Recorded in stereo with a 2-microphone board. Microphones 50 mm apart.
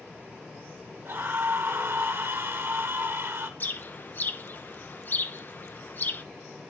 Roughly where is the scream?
Right.